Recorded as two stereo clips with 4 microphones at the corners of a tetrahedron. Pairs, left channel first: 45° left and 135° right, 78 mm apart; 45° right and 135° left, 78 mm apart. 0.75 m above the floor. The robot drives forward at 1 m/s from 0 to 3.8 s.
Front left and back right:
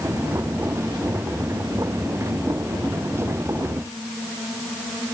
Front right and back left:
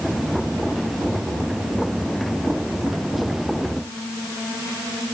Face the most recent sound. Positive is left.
No sound to turn to.